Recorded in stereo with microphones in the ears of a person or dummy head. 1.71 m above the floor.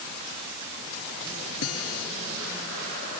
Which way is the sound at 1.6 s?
80° left.